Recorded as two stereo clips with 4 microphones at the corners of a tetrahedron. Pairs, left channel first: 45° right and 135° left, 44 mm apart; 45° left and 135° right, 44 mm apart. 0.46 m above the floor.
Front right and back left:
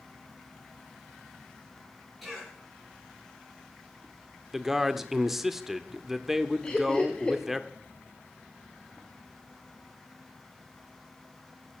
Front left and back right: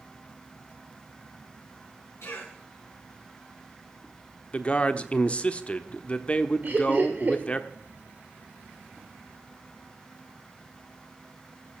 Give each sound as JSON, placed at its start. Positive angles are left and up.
{"t": 2.2, "sound": "a cough", "azimuth_deg": 50, "distance_m": 6.5}
{"t": 4.5, "sound": "a man speaking", "azimuth_deg": 60, "distance_m": 0.8}
{"t": 6.6, "sound": "laughter", "azimuth_deg": -105, "distance_m": 1.6}